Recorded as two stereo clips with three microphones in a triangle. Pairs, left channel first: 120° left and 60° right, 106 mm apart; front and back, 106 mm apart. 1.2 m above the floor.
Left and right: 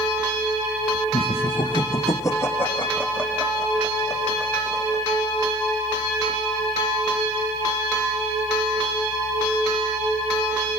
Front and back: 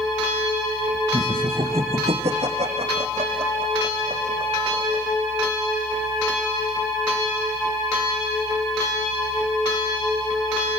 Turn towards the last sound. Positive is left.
turn(degrees=-145)